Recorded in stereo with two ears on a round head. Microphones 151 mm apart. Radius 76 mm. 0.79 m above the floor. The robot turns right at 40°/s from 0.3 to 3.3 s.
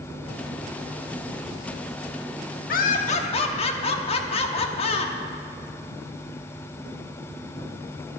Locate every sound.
2.7 s laughter: 60° left (ahead or behind), 1.2 m; by 5.1 s 35° left (ahead or behind), 1.2 m